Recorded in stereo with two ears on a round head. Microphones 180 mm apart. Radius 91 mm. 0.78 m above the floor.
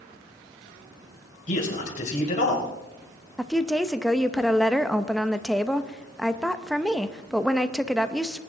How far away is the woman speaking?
About 0.6 m.